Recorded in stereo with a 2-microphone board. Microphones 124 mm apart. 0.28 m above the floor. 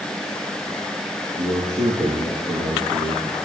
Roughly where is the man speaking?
Right.